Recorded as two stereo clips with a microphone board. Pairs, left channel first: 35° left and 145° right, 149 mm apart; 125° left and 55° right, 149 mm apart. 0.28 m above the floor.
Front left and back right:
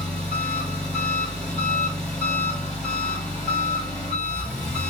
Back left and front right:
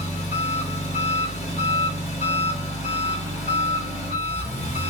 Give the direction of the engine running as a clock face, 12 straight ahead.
8 o'clock.